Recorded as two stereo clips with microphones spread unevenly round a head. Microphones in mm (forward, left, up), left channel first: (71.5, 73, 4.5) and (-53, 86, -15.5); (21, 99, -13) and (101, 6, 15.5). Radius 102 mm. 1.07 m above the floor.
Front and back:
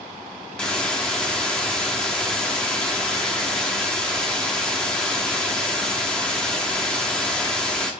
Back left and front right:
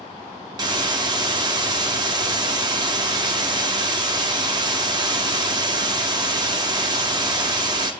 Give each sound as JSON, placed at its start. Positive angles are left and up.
{"t": 0.6, "sound": "a hiss", "azimuth_deg": -80, "distance_m": 0.7}